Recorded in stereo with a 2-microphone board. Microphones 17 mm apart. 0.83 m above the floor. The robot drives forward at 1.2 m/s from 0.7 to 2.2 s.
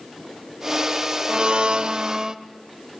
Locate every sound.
1.3 s a blender: 50° right (ahead or behind), 0.9 m; by 2.4 s 40° right (ahead or behind), 1.0 m